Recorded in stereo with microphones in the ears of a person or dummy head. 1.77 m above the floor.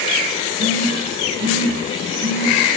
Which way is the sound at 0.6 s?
45° right (ahead or behind).